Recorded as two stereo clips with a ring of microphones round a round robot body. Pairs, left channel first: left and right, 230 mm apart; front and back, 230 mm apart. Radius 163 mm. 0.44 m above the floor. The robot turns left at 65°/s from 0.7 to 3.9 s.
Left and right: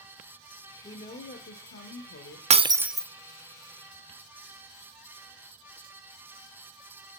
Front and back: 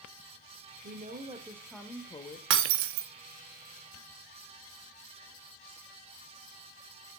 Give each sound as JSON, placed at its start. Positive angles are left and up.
{"t": 0.8, "sound": "a woman speaking", "azimuth_deg": 150, "distance_m": 1.1}
{"t": 2.5, "sound": "breaking glass", "azimuth_deg": -150, "distance_m": 0.5}